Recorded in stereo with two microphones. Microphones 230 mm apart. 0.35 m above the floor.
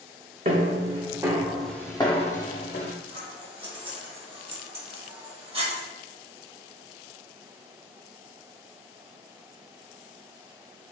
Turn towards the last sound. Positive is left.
turn(degrees=-25)  # may be behind; listen again after turning